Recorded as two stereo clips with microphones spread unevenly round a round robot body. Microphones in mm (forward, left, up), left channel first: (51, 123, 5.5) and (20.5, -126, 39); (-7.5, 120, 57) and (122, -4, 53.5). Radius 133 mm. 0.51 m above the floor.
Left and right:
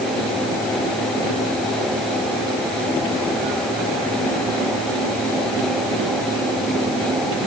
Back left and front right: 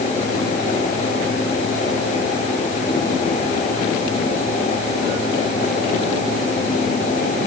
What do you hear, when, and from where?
Only background noise.